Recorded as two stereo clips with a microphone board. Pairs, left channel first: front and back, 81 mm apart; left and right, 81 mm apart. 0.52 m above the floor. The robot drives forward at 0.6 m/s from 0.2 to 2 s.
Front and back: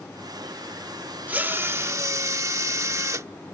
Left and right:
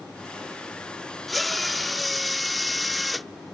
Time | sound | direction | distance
1.3 | a drill | straight behind | ?